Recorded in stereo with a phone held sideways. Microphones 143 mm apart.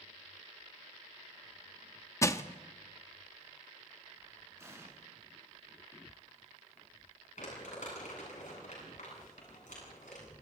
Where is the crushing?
20° left (ahead or behind), 0.8 m.